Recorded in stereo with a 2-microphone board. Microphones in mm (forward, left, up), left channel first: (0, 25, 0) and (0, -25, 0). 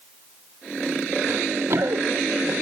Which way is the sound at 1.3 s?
55° right (ahead or behind).